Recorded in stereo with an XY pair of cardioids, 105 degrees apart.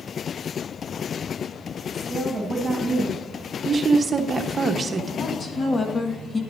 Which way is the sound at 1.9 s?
15° right.